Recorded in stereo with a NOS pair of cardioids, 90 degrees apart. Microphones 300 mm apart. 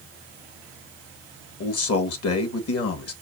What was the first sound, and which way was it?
A man speaking, 55° left.